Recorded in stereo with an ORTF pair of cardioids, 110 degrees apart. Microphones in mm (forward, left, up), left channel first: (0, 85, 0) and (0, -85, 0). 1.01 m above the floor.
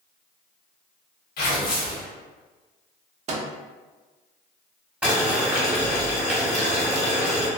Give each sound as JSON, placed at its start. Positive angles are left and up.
{"t": 1.4, "sound": "tearing paper", "azimuth_deg": 70, "distance_m": 1.2}
{"t": 3.3, "sound": "a microwave", "azimuth_deg": -45, "distance_m": 0.5}
{"t": 5.0, "sound": "boiling", "azimuth_deg": -5, "distance_m": 1.1}